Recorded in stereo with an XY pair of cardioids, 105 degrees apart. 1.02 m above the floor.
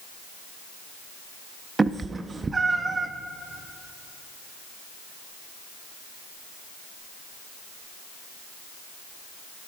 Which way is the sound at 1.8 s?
30° right.